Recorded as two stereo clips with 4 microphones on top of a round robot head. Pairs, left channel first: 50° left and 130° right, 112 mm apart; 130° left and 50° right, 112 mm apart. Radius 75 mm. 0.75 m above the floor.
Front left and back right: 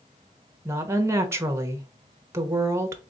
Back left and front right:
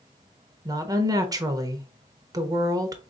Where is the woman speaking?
80° right, 1.0 m.